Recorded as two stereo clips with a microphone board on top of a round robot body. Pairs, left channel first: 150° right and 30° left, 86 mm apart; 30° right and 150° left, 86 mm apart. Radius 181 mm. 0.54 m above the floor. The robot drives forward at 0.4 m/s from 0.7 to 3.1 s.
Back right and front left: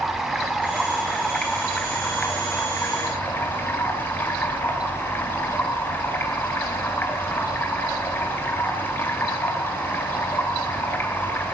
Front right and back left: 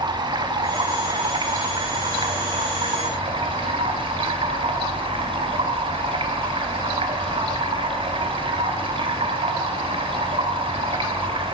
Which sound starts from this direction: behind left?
Running water, at 0.0 s.